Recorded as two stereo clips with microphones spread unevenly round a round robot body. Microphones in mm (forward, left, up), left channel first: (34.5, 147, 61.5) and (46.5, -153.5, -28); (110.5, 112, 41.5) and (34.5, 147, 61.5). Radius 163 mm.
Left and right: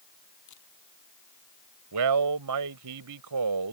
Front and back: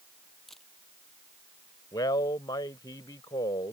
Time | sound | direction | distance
0.5 | a camera shutter | 60° left | ?
1.9 | a man speaking | 75° right | ?